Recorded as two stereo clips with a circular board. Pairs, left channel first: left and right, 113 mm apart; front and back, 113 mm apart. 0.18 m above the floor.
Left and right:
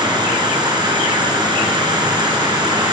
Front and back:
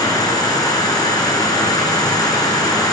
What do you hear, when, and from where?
0.0 s an insect: 50° right, 1.9 m